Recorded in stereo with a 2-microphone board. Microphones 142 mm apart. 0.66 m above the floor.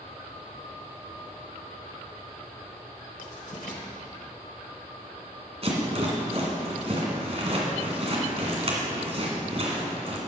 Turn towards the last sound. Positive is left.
turn(degrees=-45)  # may be behind; listen again after turning